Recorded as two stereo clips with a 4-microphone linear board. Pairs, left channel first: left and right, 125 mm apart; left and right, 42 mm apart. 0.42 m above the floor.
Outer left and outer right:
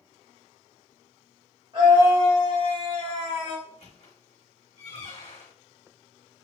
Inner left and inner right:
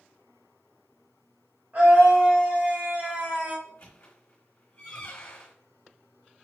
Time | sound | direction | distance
1.7 | a scream | 50° right (ahead or behind) | 2 m
3.6 | a squeak | 60° left (ahead or behind) | 1.5 m